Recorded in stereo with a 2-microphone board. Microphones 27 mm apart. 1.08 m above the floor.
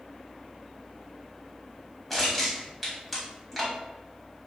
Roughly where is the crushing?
Centre.